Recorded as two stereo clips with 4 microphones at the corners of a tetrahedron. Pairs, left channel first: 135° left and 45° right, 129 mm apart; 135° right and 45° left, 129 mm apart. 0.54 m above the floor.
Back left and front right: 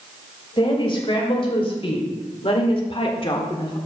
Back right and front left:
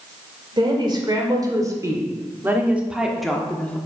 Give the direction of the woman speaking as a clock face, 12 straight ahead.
9 o'clock.